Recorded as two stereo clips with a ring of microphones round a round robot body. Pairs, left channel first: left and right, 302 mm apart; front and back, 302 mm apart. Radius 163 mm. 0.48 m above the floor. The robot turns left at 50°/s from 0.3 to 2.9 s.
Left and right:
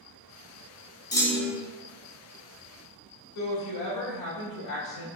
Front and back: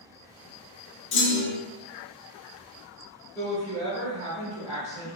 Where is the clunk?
20° left, 1.2 m; by 1.6 s 5° right, 1.2 m.